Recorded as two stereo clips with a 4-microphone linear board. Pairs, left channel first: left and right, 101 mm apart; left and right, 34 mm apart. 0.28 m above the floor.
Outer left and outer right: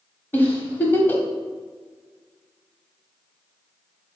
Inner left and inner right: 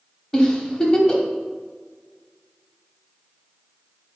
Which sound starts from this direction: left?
A giggle, at 0.3 s.